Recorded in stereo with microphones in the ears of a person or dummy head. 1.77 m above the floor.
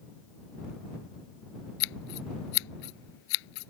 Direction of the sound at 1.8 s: 75° left (ahead or behind).